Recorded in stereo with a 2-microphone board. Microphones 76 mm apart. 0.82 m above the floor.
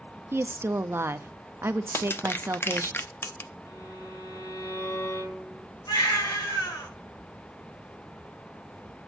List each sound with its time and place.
0.3 s a woman speaking: 35° right (ahead or behind), 0.6 m
1.9 s crushing: 30° left (ahead or behind), 0.6 m
3.6 s a violin: 60° left (ahead or behind), 4.5 m
5.9 s a baby crying: 85° left, 5.5 m